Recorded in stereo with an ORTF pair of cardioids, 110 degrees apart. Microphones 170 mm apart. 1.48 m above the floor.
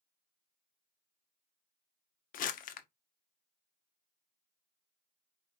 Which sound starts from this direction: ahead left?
Crumpling, at 2.3 s.